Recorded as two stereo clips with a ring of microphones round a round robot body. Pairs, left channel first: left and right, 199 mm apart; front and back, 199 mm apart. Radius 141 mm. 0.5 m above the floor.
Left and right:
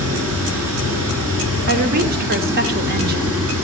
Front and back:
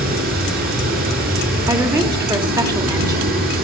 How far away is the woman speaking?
About 1.0 m.